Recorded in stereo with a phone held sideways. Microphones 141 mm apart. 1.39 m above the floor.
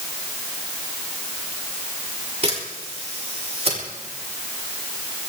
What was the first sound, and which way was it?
A camera shutter, 45° right (ahead or behind).